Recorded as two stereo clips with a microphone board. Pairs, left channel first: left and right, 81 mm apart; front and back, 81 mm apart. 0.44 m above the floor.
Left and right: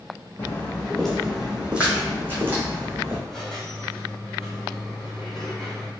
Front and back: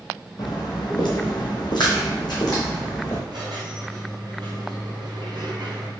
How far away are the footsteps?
About 0.9 m.